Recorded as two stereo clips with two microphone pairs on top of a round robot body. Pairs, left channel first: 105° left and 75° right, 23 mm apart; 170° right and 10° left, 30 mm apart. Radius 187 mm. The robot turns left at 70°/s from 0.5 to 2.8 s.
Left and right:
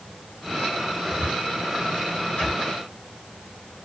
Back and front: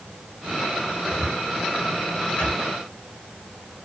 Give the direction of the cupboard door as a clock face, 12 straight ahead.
4 o'clock.